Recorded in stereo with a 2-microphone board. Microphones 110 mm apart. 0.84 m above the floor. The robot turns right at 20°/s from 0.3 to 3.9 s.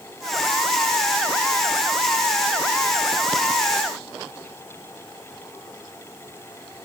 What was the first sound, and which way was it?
Only background noise.